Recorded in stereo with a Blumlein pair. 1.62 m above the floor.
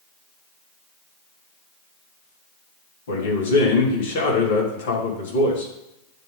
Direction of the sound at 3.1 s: 60° left.